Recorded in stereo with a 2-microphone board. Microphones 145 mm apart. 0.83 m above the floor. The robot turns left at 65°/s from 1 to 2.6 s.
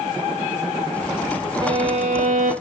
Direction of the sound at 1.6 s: 35° right.